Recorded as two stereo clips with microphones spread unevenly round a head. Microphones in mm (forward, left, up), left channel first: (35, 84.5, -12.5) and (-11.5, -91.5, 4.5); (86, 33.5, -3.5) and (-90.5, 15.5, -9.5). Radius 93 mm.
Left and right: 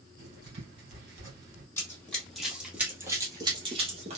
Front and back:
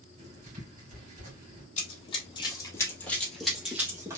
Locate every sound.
0.2 s writing: 120° right, 3 m
1.8 s running footsteps: 5° right, 2 m; by 4.2 s 105° right, 2 m